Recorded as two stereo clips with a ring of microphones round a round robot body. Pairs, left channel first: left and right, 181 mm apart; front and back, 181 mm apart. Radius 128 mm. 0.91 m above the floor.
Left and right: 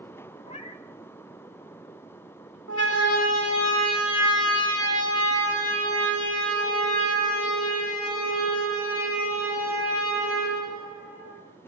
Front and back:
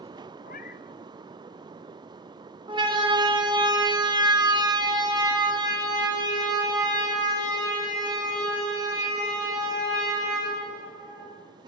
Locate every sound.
0.4 s a cat meowing: 35° left, 2 m
2.7 s a siren: 115° left, 2.5 m; by 11.4 s 110° left, 12.5 m